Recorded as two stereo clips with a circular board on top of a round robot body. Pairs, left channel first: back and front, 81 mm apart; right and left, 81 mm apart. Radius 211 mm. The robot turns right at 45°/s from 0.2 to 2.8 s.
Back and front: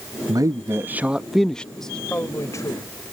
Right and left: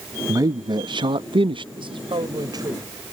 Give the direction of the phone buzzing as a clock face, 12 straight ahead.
I don't hear a phone buzzing.